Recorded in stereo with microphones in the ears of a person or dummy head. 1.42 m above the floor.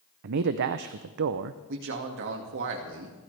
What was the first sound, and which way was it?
A man speaking, 55° right (ahead or behind).